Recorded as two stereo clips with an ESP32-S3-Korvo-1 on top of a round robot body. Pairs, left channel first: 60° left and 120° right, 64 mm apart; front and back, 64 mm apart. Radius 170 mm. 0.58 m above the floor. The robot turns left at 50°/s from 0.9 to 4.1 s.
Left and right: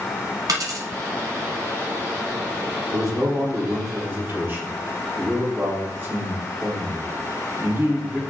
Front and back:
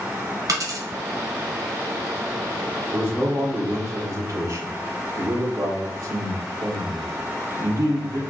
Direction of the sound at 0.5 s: 145° right.